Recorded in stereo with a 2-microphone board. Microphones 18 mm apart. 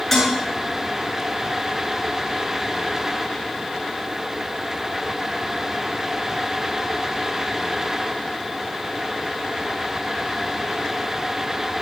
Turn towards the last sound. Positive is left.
turn(degrees=20)  # may be behind; listen again after turning